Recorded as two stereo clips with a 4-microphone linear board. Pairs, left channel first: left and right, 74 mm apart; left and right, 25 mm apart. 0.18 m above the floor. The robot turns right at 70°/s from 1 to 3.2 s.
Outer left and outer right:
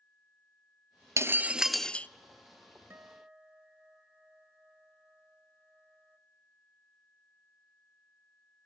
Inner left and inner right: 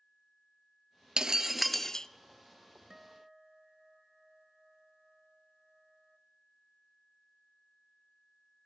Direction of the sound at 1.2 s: 40° right.